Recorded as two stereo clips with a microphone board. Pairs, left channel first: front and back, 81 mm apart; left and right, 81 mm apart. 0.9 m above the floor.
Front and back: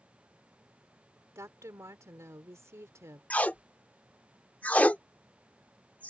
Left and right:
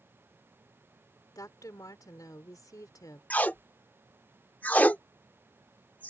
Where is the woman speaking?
130° left.